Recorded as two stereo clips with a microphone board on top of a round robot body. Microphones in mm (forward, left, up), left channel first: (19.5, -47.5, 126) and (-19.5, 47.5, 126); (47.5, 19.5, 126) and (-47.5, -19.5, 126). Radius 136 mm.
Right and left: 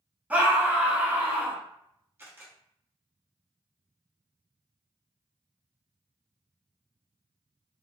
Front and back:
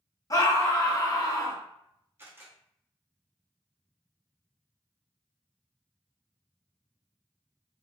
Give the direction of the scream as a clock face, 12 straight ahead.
10 o'clock.